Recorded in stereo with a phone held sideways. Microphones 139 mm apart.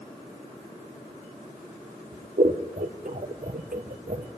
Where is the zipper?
I don't hear a zipper.